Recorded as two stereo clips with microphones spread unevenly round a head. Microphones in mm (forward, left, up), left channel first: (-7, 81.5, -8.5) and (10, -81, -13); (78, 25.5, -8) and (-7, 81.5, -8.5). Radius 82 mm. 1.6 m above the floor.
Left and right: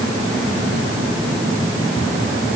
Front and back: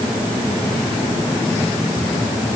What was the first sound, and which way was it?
Only background noise.